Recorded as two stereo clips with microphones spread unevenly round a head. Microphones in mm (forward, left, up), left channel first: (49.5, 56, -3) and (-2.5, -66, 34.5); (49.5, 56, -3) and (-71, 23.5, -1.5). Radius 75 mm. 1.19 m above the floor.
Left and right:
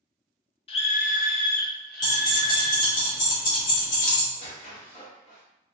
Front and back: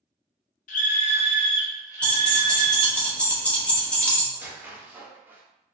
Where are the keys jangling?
95° left, 1.0 m.